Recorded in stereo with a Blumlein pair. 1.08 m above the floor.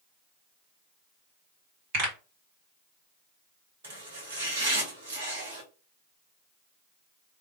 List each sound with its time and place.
1.9 s a pop: 45° right, 2.5 m
3.8 s chopping: 65° right, 1.5 m